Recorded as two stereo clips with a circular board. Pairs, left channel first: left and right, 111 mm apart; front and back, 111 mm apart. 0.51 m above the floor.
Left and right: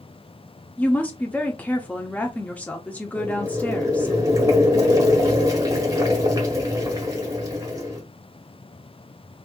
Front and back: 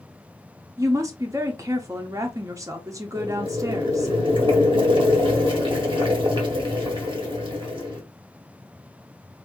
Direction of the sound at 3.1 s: 145° right.